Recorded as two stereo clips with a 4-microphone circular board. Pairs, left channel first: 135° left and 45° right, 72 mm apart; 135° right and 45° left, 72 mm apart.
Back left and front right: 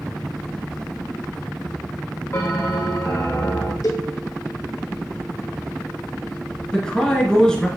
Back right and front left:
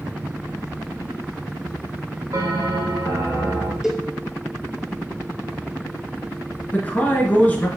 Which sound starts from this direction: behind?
A man speaking, at 6.7 s.